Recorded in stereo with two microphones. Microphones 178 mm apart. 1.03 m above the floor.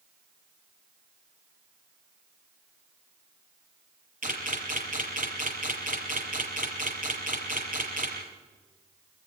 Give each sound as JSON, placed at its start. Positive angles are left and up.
{"t": 4.2, "sound": "a camera shutter", "side_deg": -50, "distance_m": 6.5}